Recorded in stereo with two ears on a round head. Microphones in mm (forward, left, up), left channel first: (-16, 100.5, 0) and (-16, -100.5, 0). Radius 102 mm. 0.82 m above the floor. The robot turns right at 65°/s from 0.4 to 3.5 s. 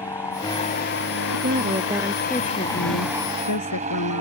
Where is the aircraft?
15° left; by 4.2 s 145° right.